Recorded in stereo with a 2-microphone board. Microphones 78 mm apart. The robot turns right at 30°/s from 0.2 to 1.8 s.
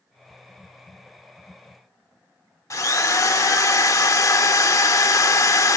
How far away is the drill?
About 1.0 m.